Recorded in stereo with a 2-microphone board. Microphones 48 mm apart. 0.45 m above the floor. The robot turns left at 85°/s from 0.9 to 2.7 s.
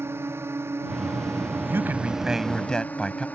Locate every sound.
0.0 s a drone: 60° right; by 3.4 s 145° left
1.7 s a man speaking: 110° right; by 3.3 s 165° left